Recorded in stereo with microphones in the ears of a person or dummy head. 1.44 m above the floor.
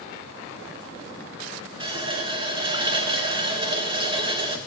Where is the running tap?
30° right (ahead or behind), 0.7 m.